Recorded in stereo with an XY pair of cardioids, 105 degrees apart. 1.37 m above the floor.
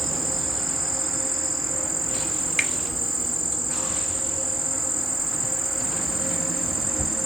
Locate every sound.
0.0 s an insect: 10° right, 1.0 m
2.6 s a finger snap: 5° right, 1.1 m